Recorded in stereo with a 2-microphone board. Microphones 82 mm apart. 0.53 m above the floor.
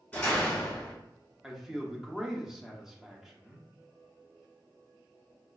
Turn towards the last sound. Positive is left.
turn(degrees=-5)  # may be behind; listen again after turning